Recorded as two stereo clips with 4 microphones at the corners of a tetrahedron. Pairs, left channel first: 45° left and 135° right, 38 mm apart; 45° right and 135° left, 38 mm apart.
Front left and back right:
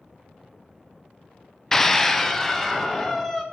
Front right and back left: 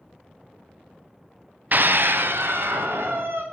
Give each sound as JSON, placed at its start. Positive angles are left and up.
{"t": 1.7, "sound": "a scream", "azimuth_deg": 120, "distance_m": 0.6}